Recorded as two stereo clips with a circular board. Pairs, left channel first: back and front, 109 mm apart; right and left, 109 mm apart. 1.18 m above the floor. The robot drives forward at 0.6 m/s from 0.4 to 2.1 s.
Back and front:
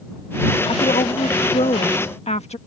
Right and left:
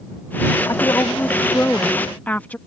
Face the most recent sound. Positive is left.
turn(degrees=-165)